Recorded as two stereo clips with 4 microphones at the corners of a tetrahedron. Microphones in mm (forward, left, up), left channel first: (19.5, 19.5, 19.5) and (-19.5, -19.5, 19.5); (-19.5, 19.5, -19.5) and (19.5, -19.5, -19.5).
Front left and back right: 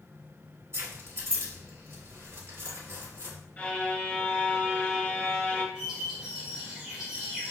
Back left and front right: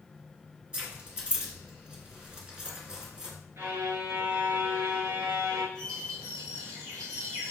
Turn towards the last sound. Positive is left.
turn(degrees=-55)